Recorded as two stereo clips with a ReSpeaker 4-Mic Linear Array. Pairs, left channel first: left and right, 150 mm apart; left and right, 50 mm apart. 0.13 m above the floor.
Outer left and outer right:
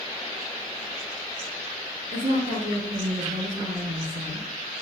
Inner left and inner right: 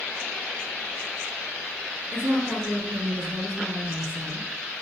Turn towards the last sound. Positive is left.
turn(degrees=-55)  # may be behind; listen again after turning